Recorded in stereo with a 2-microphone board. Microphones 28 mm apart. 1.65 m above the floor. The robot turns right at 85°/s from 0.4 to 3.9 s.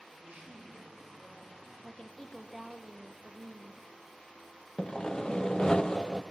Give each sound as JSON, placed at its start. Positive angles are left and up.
{"t": 0.1, "sound": "a man speaking", "azimuth_deg": -65, "distance_m": 7.5}
{"t": 1.8, "sound": "a woman speaking", "azimuth_deg": 125, "distance_m": 1.1}
{"t": 4.8, "sound": "sawing", "side_deg": 30, "distance_m": 0.5}